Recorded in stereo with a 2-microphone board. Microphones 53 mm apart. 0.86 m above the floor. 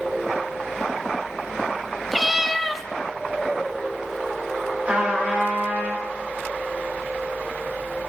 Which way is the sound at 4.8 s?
30° right (ahead or behind).